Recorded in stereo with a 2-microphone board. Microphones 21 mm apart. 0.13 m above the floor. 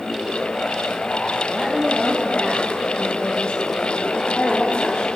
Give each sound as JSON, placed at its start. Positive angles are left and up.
{"t": 1.5, "sound": "a woman speaking", "side_deg": 15, "distance_m": 4.0}